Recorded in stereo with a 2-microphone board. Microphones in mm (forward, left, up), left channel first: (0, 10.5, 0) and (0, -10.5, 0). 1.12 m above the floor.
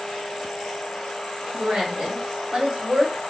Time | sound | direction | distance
1.5 | a woman speaking | 55° right (ahead or behind) | 1.7 m